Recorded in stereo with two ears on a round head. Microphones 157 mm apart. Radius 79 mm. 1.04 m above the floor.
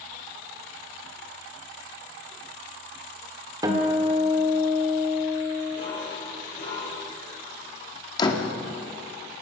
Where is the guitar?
20° right (ahead or behind), 2 m.